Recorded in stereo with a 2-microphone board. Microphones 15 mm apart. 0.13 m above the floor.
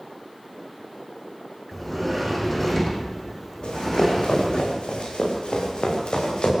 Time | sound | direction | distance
1.7 | a sliding door | 10° left (ahead or behind) | 4 m
3.6 | running footsteps | 85° left | 9 m